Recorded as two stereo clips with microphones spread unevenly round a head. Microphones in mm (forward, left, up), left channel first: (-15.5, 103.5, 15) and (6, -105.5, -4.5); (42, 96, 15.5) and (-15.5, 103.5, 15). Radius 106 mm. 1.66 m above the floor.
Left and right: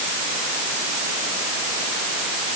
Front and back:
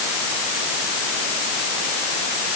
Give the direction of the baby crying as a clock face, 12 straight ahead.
No baby crying in this recording.